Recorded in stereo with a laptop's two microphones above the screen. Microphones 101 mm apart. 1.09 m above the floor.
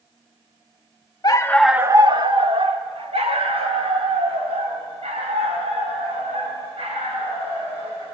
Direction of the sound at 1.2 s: 40° left (ahead or behind).